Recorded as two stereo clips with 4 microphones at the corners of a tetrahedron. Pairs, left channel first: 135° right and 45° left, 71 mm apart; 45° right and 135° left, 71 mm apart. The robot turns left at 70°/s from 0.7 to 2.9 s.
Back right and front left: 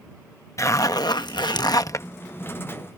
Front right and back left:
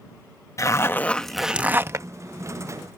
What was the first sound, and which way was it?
A zipper, 90° right.